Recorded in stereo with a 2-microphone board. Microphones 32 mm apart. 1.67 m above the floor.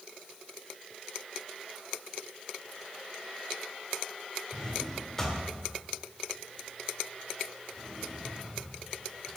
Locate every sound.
4.5 s a drawer: 15° left (ahead or behind), 2 m